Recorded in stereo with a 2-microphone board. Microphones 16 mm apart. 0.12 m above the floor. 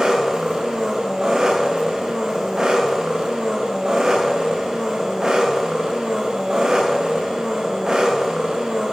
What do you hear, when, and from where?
0.0 s an engine running: 40° right (ahead or behind), 5.5 m